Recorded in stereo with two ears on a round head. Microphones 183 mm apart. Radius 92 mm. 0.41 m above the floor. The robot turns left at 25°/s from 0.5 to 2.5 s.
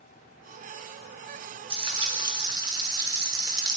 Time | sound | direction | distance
1.7 | frying | 25° right (ahead or behind) | 1.0 m